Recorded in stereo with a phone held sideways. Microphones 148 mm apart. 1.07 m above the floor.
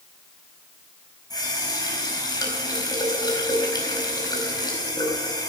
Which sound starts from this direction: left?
A running tap, at 1.3 s.